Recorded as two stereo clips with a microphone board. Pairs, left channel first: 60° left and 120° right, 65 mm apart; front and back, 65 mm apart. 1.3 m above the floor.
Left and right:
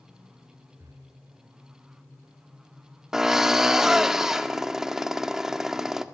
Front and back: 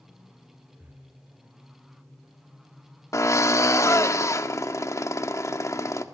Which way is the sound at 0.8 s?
125° right.